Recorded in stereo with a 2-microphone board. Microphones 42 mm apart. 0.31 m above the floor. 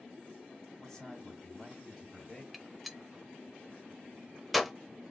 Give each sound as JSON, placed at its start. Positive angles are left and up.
{"t": 0.8, "sound": "a man speaking", "side_deg": 10, "distance_m": 2.0}
{"t": 2.5, "sound": "a gunshot", "side_deg": 0, "distance_m": 0.6}